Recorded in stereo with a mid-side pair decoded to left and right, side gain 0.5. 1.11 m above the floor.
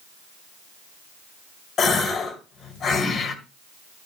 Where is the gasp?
50° left, 2 m.